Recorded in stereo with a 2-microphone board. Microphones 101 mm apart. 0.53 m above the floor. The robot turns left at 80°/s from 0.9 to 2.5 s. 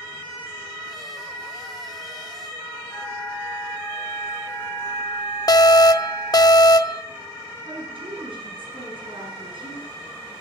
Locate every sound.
2.9 s a flute: 30° left (ahead or behind), 6 m
5.5 s an alarm: 40° left (ahead or behind), 0.7 m
7.7 s a woman speaking: 60° right (ahead or behind), 6 m